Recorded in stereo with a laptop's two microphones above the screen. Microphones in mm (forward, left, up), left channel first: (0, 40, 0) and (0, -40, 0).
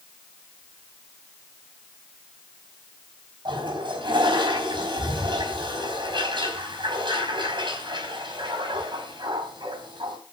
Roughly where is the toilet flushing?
Right.